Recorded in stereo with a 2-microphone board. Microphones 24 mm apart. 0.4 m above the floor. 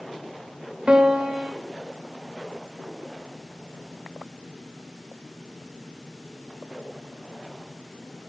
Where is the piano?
45° right (ahead or behind), 0.7 m.